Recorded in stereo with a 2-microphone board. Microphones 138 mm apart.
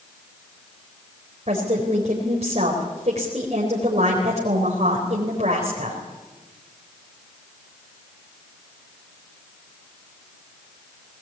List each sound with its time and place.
1.5 s a woman speaking: 55° right (ahead or behind), 4 m